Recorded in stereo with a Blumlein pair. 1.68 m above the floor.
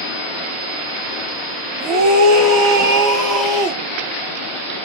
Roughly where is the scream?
Ahead right.